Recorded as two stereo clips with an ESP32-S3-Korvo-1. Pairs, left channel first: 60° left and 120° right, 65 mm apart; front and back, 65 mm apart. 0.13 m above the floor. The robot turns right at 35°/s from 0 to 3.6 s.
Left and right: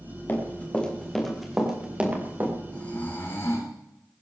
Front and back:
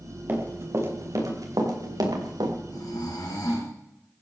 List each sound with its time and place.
0.3 s running footsteps: 120° left, 4.5 m; by 2.5 s 175° right, 4 m
2.7 s snoring: 10° right, 3.5 m; by 3.7 s 20° left, 3.5 m